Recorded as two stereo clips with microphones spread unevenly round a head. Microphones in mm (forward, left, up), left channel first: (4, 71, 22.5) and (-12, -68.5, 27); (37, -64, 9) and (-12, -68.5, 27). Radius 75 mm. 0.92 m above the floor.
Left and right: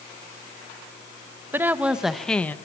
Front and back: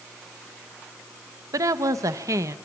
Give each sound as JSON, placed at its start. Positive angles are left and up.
{"t": 1.5, "sound": "a woman speaking", "azimuth_deg": -170, "distance_m": 1.0}